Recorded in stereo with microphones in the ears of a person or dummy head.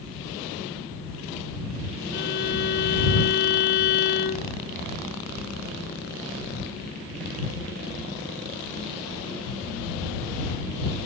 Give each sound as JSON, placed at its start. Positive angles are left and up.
{"t": 2.1, "sound": "a violin", "side_deg": 60}